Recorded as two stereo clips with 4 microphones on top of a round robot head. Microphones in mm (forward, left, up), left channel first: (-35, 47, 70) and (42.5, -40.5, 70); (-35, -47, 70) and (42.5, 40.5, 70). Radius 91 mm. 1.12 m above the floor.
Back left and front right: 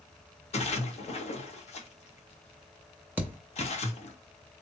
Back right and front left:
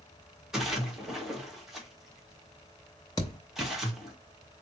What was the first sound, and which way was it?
A splash, 135° left.